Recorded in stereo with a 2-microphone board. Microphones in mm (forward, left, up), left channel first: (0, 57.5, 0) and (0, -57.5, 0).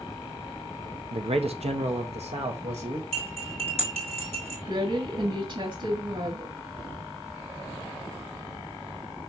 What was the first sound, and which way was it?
A man speaking, 55° right (ahead or behind).